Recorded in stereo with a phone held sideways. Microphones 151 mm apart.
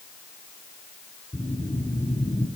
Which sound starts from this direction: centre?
A whoosh, at 1.3 s.